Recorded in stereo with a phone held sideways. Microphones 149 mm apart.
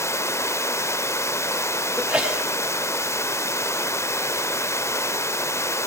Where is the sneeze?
5° right (ahead or behind), 6 m.